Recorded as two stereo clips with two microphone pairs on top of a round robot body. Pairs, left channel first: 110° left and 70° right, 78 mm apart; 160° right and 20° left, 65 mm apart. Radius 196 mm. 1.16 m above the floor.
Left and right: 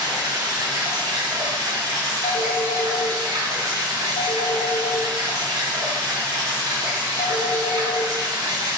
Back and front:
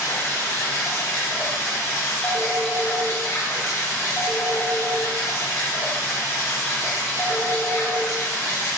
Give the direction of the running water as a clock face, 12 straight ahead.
4 o'clock.